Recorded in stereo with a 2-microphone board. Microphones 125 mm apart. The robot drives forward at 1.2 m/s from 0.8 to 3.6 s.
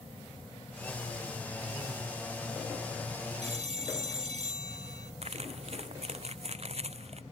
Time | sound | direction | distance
3.4 | a phone ringing | 70° right (ahead or behind) | ?
5.2 | crumpling | 60° right (ahead or behind) | ?